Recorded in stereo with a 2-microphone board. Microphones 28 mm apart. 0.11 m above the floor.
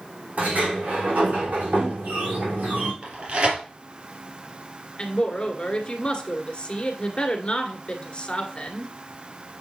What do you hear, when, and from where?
0.4 s a sliding door: 75° right (ahead or behind), 5.5 m
3.0 s tearing paper: 40° right (ahead or behind), 3 m
5.0 s a woman speaking: 35° left (ahead or behind), 1.6 m